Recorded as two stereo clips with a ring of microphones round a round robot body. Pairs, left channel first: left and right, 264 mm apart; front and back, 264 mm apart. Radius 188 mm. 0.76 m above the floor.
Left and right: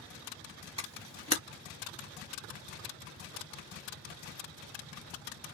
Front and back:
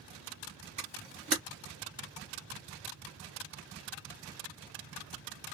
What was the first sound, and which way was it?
A camera shutter, 135° right.